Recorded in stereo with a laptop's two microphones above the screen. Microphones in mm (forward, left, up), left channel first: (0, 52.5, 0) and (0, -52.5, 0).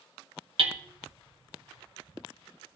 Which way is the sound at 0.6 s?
60° right (ahead or behind).